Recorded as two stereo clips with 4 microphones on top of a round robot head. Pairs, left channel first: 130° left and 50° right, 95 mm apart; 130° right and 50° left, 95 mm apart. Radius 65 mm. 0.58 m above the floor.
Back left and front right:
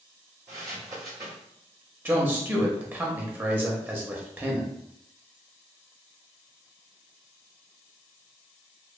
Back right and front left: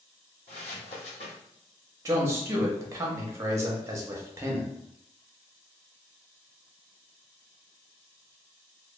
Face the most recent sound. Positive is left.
turn(degrees=10)